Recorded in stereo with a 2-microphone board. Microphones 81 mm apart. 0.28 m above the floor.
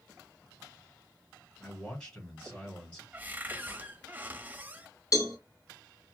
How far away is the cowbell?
About 1.3 m.